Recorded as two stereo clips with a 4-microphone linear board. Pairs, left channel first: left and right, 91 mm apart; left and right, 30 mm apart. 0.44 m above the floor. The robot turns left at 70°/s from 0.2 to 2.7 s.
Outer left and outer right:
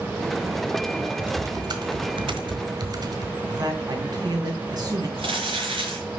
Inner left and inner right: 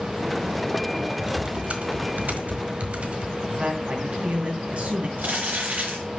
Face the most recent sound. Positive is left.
turn(degrees=-80)